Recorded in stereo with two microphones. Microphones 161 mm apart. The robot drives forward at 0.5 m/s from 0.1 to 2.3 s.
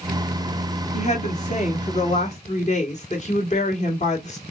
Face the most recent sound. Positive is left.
turn(degrees=40)  # may be behind; listen again after turning